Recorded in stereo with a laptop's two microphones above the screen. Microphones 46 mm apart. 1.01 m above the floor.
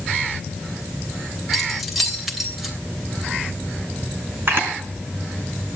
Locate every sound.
1.5 s keys jangling: centre (ahead or behind), 3 m
4.5 s a camera shutter: 50° right (ahead or behind), 4 m